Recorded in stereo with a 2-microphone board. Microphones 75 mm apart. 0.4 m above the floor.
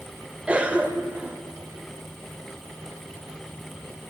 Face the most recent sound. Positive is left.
turn(degrees=-20)  # may be behind; listen again after turning